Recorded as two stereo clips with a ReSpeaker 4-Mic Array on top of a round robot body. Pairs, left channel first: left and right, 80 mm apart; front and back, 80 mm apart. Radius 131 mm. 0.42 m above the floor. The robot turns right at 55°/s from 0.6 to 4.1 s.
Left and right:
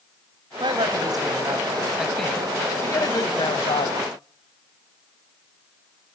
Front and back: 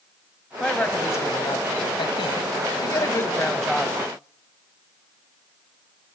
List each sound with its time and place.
0.6 s a woman speaking: 85° right, 2.5 m; by 4.0 s 100° left, 2.5 m